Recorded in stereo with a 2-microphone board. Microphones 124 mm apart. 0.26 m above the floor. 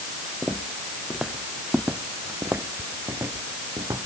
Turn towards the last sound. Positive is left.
turn(degrees=-30)  # may be behind; listen again after turning